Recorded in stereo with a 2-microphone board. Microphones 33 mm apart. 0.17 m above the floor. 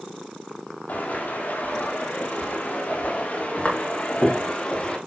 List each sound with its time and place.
0.9 s footsteps: 75° left (ahead or behind), 4 m; by 5.0 s 40° left (ahead or behind), 3 m